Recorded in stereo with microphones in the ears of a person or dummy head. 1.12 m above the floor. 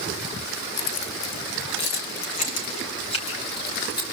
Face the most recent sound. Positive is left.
turn(degrees=25)  # may be behind; listen again after turning